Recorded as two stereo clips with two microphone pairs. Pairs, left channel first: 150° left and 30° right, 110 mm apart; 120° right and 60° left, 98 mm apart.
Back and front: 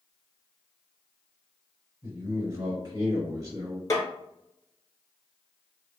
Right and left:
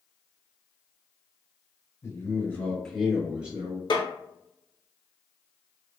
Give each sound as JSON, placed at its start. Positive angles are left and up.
{"t": 2.0, "sound": "a man speaking", "azimuth_deg": -85, "distance_m": 1.7}
{"t": 3.9, "sound": "a snare drum", "azimuth_deg": -150, "distance_m": 0.8}